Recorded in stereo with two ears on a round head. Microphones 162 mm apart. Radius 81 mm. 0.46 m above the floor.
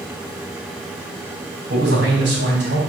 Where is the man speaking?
65° right (ahead or behind), 3.5 m.